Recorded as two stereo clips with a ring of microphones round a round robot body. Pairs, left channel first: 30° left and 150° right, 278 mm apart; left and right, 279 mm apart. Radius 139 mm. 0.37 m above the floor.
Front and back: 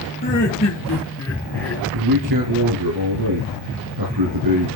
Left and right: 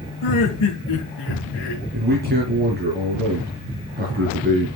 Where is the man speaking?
145° right, 4 m.